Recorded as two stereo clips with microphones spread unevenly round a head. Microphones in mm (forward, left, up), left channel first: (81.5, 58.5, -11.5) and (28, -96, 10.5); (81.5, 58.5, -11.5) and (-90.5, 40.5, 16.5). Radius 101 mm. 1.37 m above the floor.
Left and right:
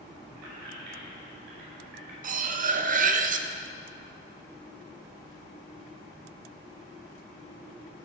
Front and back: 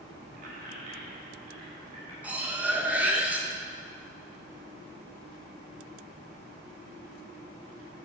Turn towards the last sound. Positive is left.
turn(degrees=-95)